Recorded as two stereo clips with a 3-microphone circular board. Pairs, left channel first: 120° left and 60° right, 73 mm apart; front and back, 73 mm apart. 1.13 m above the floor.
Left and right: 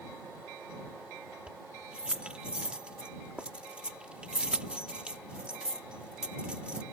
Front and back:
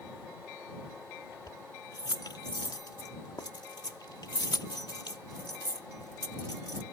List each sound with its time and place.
1.5 s keys jangling: 15° left